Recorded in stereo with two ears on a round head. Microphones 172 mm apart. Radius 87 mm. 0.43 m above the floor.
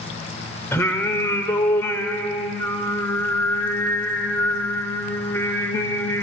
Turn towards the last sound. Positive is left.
turn(degrees=15)  # may be behind; listen again after turning